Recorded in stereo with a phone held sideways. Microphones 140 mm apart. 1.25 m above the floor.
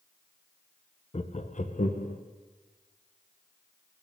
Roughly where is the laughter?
Left.